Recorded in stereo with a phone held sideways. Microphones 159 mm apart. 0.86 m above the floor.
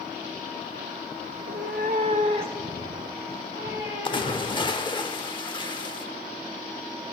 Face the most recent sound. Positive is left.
turn(degrees=30)  # may be behind; listen again after turning